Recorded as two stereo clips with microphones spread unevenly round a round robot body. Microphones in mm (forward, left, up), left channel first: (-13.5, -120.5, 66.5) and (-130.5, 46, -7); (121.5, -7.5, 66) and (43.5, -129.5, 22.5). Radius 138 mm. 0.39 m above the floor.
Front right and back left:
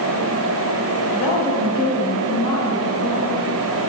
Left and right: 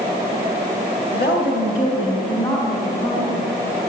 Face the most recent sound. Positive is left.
turn(degrees=5)